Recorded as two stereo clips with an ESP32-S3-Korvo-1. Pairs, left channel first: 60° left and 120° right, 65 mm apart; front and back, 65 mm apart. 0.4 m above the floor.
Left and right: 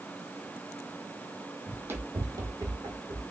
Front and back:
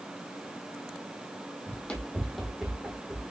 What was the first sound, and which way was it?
Running footsteps, 60° right.